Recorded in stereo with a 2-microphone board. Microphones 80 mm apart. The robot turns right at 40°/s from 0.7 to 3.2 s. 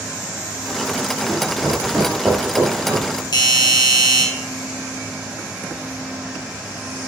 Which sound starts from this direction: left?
A doorbell, at 3.3 s.